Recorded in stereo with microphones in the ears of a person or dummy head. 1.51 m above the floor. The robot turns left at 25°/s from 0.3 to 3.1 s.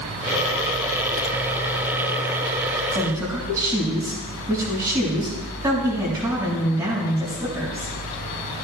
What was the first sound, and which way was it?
A woman speaking, 20° right (ahead or behind).